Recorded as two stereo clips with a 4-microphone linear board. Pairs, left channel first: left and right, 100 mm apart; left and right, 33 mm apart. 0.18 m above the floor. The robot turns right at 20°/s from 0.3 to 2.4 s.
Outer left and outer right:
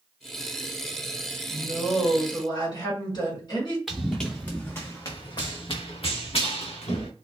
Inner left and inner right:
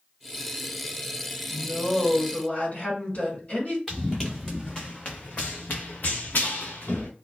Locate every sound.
1.5 s a woman speaking: 50° left (ahead or behind), 1.7 m
3.9 s running footsteps: centre (ahead or behind), 1.0 m; by 7.1 s 85° left, 1.4 m